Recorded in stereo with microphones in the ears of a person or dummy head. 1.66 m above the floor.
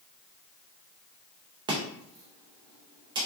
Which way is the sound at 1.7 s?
15° right (ahead or behind).